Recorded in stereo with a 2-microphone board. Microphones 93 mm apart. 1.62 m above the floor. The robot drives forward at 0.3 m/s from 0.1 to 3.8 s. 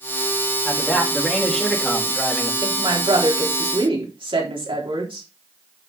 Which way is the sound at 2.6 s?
80° right.